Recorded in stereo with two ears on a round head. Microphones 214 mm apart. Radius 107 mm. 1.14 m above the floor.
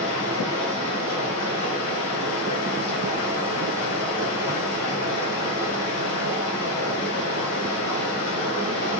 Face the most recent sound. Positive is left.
turn(degrees=75)  # may be behind; listen again after turning